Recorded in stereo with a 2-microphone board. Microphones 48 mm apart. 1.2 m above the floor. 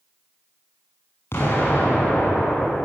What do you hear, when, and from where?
1.3 s an explosion: 65° left (ahead or behind), 8 m